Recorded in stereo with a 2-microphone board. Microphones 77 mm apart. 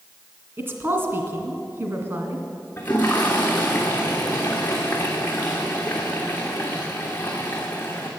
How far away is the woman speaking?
About 2 m.